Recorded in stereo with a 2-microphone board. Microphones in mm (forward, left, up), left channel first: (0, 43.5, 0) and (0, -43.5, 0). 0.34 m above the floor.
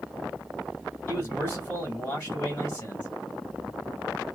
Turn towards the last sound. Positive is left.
turn(degrees=20)  # may be behind; listen again after turning